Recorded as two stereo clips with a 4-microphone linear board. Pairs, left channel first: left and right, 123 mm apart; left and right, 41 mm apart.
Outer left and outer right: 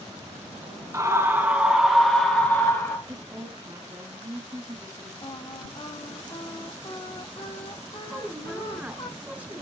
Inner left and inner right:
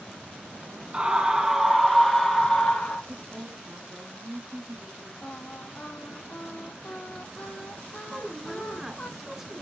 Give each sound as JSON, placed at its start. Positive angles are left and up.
{"t": 0.9, "sound": "a scream", "side_deg": -25, "distance_m": 1.7}
{"t": 3.1, "sound": "a woman speaking", "side_deg": -30, "distance_m": 1.5}
{"t": 5.2, "sound": "singing", "side_deg": 50, "distance_m": 1.9}
{"t": 8.1, "sound": "a woman speaking", "side_deg": -10, "distance_m": 1.1}